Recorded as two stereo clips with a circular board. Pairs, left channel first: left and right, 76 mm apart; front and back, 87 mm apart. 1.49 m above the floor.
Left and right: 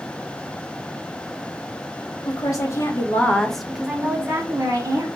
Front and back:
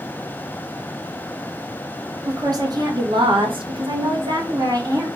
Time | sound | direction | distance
2.2 | a woman speaking | 130° left | 1.2 m